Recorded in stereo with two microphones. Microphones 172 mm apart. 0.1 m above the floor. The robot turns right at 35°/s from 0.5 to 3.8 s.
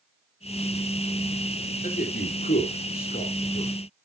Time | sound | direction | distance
1.8 | a man speaking | 55° left (ahead or behind) | 2.5 m